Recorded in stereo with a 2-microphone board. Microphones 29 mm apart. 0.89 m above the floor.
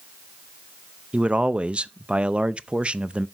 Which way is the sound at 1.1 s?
45° right (ahead or behind).